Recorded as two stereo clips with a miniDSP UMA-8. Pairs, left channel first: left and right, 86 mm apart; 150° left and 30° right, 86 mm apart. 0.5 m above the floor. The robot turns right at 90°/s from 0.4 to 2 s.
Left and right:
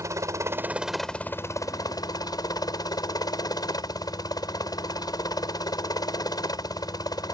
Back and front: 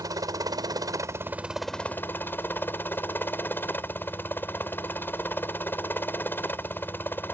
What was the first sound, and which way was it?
A helicopter, 50° right.